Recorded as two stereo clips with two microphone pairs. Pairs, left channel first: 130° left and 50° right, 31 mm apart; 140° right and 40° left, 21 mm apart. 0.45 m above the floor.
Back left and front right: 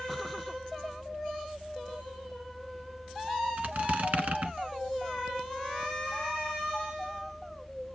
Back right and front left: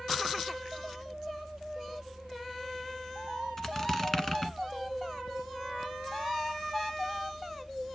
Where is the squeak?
75° right, 1.2 m.